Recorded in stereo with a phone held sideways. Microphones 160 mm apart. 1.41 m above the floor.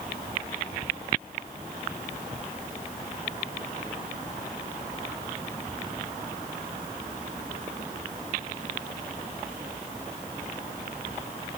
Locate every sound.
Only background noise.